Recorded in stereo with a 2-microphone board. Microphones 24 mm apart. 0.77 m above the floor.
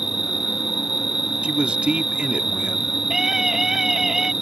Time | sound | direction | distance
0.0 | an insect | 15° right (ahead or behind) | ?
1.4 | a man speaking | 50° right (ahead or behind) | ?
3.1 | a scream | 15° right (ahead or behind) | ?